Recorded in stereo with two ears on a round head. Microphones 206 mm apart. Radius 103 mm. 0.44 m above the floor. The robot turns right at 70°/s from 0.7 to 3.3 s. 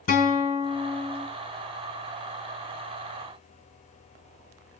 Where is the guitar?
115° left, 1.7 m; by 1.3 s 155° left, 1.7 m.